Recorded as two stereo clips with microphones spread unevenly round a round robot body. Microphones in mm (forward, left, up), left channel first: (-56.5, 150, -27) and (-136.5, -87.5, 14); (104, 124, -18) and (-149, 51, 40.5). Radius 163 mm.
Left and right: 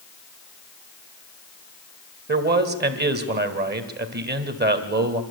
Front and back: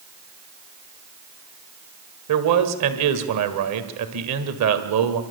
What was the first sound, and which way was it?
A man speaking, 155° right.